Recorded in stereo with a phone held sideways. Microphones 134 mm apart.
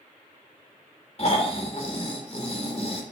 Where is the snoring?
45° left (ahead or behind), 3 m.